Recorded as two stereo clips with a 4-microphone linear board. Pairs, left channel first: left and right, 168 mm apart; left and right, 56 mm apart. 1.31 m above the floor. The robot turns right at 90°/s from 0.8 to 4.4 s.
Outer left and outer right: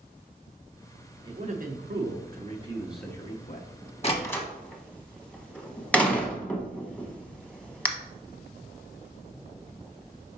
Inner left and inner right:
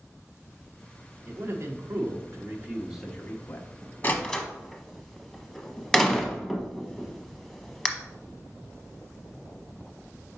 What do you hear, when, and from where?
1.2 s a man speaking: 155° right, 1.0 m; by 3.7 s 60° left, 1.0 m
4.0 s a door slam: 40° left (ahead or behind), 0.9 m; by 7.9 s 5° left (ahead or behind), 0.9 m